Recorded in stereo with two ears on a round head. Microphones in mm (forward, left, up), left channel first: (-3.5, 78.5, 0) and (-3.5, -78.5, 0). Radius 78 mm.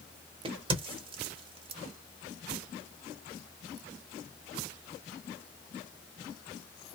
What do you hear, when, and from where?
0.5 s a crack: 30° right (ahead or behind), 0.8 m